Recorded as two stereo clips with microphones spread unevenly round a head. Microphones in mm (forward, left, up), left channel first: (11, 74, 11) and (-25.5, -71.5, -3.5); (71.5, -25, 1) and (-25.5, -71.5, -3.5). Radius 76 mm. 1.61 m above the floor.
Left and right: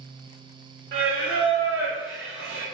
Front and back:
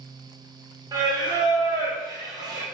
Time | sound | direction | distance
0.9 | singing | 105° right | 1.0 m